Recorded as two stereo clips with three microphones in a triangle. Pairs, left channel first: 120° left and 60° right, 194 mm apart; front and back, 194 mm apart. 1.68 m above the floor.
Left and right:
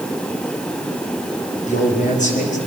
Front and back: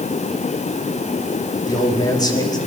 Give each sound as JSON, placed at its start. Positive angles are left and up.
{"t": 1.7, "sound": "a man speaking", "azimuth_deg": 70, "distance_m": 5.0}